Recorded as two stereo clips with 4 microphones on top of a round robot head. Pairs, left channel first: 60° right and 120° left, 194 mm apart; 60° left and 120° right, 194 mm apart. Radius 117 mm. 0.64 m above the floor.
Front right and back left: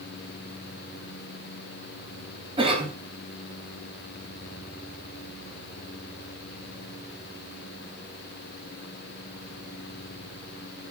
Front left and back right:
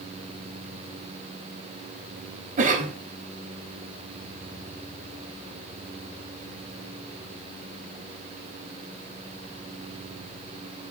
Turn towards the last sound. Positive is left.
turn(degrees=-175)